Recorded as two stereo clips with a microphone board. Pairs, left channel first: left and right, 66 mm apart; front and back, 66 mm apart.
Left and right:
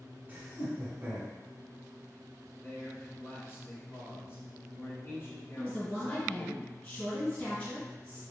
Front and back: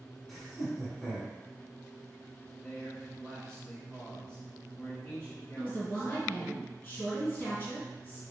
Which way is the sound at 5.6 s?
40° left.